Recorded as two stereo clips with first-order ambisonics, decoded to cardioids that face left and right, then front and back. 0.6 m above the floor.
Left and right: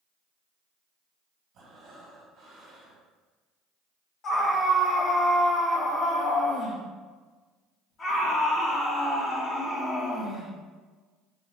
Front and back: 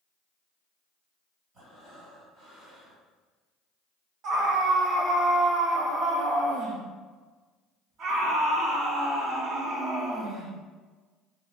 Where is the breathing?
125° right, 1.4 m.